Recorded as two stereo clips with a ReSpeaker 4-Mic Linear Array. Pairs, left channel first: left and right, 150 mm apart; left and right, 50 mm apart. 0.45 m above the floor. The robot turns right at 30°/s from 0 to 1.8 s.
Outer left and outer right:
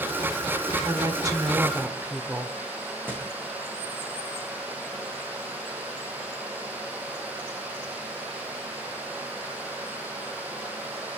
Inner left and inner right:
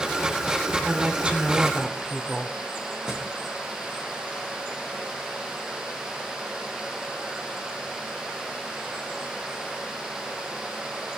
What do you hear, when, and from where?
0.8 s a woman speaking: 30° right (ahead or behind), 1.2 m; by 2.6 s 15° right (ahead or behind), 1.2 m
3.1 s a thud: 15° right (ahead or behind), 4.5 m